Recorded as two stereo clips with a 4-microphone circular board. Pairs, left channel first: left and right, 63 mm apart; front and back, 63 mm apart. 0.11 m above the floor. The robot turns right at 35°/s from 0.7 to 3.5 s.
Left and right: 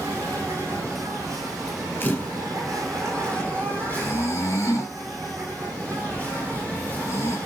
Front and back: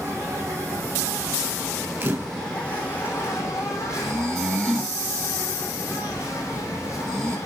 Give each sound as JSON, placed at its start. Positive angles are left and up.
{"t": 0.0, "sound": "an insect", "azimuth_deg": -135, "distance_m": 7.0}
{"t": 2.0, "sound": "a camera shutter", "azimuth_deg": 130, "distance_m": 1.5}
{"t": 4.0, "sound": "snoring", "azimuth_deg": 85, "distance_m": 2.5}